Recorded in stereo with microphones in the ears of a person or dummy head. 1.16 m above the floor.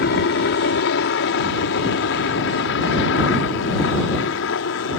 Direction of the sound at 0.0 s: 60° left (ahead or behind).